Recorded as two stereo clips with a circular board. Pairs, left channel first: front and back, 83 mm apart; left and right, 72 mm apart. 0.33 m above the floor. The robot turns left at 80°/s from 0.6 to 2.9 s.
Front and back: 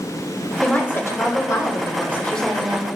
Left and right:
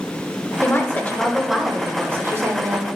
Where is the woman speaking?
70° left, 1.0 m; by 2.9 s 110° right, 1.0 m.